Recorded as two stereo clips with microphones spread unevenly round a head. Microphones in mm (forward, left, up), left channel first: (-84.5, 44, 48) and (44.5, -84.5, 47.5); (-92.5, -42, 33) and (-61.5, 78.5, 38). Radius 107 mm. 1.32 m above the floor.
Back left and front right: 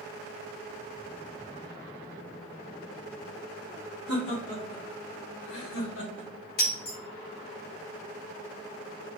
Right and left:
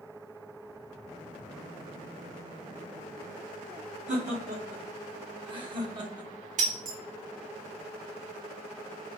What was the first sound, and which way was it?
Laughter, 105° left.